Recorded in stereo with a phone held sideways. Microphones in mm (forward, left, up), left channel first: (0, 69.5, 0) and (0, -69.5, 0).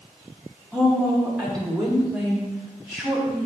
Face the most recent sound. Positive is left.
turn(degrees=0)  # may be behind; listen again after turning